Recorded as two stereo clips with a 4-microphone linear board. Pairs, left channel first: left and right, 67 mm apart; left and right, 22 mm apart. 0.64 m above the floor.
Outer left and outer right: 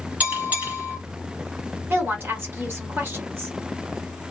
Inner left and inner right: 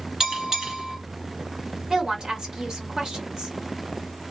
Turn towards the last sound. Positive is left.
turn(degrees=-35)  # may be behind; listen again after turning